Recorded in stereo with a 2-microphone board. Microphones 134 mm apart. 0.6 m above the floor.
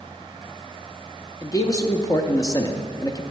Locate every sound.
1.4 s a man speaking: 25° left (ahead or behind), 0.7 m